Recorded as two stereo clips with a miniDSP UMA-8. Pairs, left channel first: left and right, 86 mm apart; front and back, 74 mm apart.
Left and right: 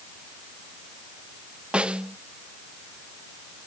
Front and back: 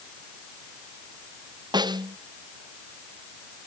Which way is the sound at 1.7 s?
170° right.